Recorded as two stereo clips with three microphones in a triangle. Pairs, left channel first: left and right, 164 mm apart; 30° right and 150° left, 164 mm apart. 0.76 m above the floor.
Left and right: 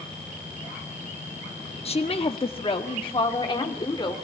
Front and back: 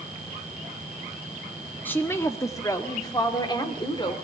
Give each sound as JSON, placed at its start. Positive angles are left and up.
{"t": 1.9, "sound": "a woman speaking", "azimuth_deg": 45, "distance_m": 1.1}